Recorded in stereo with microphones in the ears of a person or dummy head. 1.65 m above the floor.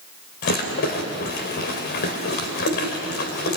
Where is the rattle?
50° left (ahead or behind), 3 m.